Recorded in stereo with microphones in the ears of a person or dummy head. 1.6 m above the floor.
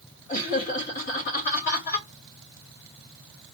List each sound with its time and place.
0.3 s laughter: 40° left (ahead or behind), 2.5 m